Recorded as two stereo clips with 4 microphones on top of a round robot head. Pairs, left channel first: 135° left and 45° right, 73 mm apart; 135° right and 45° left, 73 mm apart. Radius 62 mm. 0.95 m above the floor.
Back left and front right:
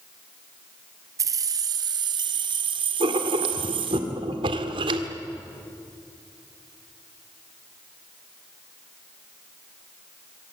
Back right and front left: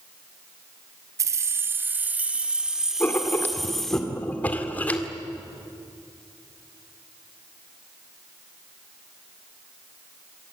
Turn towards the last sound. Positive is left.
turn(degrees=-60)